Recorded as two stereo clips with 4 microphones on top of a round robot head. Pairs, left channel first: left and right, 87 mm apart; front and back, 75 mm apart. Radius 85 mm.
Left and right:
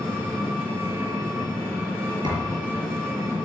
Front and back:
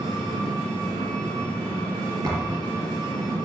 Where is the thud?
125° right, 5.5 m.